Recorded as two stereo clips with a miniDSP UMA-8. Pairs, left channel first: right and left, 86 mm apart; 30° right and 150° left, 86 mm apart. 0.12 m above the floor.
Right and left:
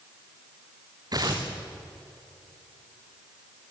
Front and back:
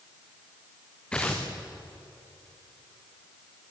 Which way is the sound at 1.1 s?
50° left.